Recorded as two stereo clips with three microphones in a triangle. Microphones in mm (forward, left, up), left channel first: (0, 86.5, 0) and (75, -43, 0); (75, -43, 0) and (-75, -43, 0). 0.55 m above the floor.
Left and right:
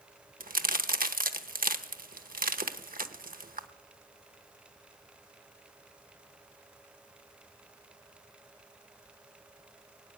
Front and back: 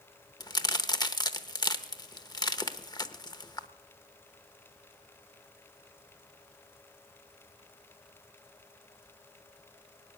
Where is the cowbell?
No cowbell in this recording.